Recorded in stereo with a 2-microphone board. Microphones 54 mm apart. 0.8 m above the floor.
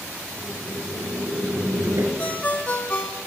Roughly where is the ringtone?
Left.